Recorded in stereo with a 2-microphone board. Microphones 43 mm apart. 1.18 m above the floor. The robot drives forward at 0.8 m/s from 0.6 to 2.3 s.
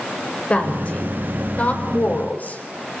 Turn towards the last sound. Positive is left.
turn(degrees=40)  # may be behind; listen again after turning